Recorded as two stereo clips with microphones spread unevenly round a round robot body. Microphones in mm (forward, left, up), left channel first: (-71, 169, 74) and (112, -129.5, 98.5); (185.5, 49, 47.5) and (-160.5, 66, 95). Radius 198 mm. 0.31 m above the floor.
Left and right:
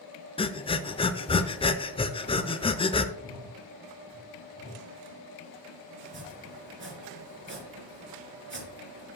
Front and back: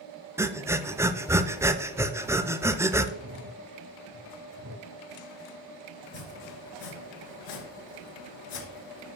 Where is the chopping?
Straight ahead, 3 m.